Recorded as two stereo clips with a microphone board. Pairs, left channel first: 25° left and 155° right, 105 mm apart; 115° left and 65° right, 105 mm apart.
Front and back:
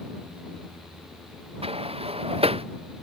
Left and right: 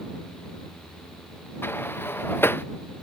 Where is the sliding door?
Straight behind.